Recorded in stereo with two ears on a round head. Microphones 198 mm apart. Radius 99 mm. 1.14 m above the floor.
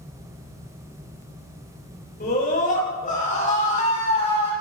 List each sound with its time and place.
2.2 s a scream: 40° left (ahead or behind), 6.5 m; by 4.5 s 30° left (ahead or behind), 7 m